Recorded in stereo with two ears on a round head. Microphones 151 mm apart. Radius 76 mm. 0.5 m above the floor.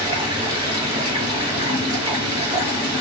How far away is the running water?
About 4.5 m.